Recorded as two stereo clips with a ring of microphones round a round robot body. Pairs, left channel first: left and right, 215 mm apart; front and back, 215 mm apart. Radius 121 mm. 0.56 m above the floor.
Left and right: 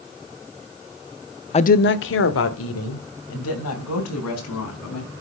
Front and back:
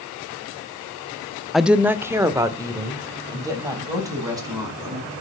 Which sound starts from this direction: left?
A woman speaking, at 1.5 s.